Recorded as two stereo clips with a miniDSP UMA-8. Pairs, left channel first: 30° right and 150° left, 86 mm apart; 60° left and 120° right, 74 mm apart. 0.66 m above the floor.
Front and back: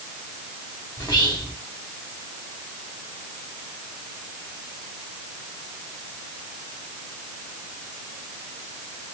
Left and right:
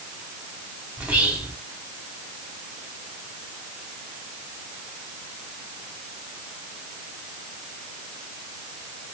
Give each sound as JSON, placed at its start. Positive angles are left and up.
{"t": 1.0, "sound": "whispering", "azimuth_deg": -50, "distance_m": 1.4}